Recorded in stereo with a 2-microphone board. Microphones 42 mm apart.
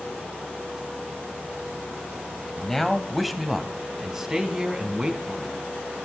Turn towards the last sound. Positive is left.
turn(degrees=-20)  # may be behind; listen again after turning